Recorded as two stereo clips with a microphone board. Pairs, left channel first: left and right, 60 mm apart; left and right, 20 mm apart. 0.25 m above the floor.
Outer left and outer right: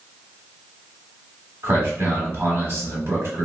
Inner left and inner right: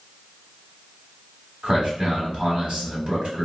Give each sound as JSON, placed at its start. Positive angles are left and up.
{"t": 1.6, "sound": "a man speaking", "side_deg": -50, "distance_m": 1.3}